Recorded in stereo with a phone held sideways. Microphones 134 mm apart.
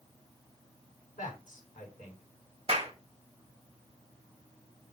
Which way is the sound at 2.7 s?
45° right (ahead or behind).